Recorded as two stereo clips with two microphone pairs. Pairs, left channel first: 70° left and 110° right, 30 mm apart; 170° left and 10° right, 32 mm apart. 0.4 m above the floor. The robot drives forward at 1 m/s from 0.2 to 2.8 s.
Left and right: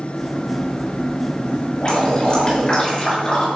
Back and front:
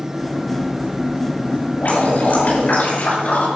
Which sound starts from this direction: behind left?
Dripping, at 1.8 s.